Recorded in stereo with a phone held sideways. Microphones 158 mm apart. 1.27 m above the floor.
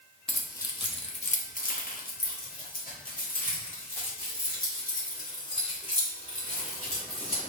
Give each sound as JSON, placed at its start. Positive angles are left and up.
{"t": 0.3, "sound": "keys jangling", "side_deg": 5, "distance_m": 0.7}